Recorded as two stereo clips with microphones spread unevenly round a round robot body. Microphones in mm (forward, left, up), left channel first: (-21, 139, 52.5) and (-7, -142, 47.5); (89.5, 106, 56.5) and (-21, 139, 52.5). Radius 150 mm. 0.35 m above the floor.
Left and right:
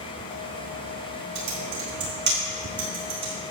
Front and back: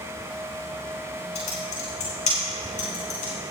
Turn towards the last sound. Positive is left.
turn(degrees=-35)